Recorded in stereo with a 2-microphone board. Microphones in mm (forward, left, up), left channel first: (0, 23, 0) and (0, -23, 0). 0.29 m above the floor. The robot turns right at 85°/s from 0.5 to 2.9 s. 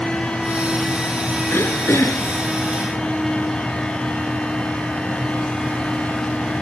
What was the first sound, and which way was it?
Throat clearing, 55° left.